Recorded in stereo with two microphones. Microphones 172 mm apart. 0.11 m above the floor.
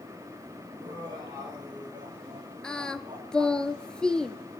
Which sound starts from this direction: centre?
Singing, at 2.6 s.